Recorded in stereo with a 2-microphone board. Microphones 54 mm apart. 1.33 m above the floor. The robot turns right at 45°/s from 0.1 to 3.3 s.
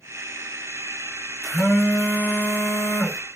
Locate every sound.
1.4 s a phone buzzing: straight ahead, 1.6 m; by 3.2 s 80° left, 1.6 m